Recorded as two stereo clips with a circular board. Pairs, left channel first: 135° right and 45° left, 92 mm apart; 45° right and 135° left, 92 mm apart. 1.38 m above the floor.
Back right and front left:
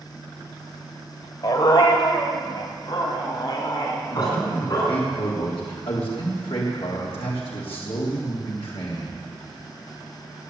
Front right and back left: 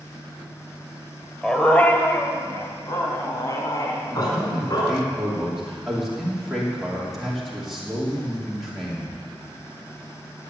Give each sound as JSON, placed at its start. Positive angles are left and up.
{"t": 1.4, "sound": "a dog barking", "azimuth_deg": -130, "distance_m": 1.5}
{"t": 4.1, "sound": "a man speaking", "azimuth_deg": -135, "distance_m": 3.0}